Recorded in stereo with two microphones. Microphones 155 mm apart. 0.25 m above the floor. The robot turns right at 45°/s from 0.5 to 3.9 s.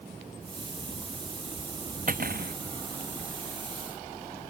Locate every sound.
2.1 s cutlery clinking: 65° right (ahead or behind); by 2.5 s 85° right